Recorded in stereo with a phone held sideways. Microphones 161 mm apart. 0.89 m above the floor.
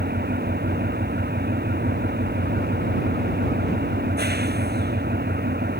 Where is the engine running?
85° right.